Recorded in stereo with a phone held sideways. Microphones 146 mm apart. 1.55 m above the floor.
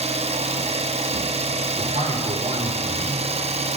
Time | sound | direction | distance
0.0 | an engine running | 45° right (ahead or behind) | 0.8 m
1.8 | a man speaking | 45° right (ahead or behind) | 5 m